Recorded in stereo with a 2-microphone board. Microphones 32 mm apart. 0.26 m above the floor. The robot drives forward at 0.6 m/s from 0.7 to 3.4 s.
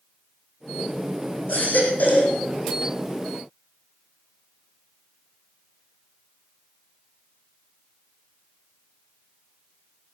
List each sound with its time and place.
1.5 s a baby crying: 65° left (ahead or behind), 4 m; by 2.4 s 55° left (ahead or behind), 4.5 m